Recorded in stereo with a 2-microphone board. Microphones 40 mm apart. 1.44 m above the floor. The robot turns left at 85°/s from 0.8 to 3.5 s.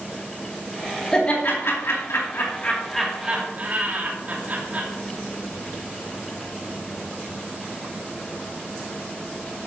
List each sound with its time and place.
1.1 s laughter: 20° left (ahead or behind), 2.5 m; by 4.9 s 40° right (ahead or behind), 2.5 m